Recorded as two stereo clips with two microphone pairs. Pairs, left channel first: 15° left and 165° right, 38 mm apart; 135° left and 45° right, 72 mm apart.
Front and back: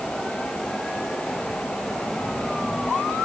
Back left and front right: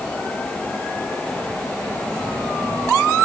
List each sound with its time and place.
Only background noise.